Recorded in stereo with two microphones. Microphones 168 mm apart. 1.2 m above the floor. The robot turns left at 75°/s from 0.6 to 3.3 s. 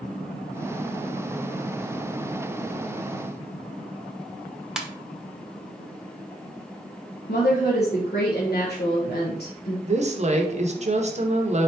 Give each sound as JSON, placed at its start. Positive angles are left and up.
{"t": 4.8, "sound": "a ringtone", "side_deg": -5, "distance_m": 0.6}
{"t": 7.3, "sound": "a woman speaking", "side_deg": 75, "distance_m": 0.9}
{"t": 9.9, "sound": "a woman speaking", "side_deg": -45, "distance_m": 0.7}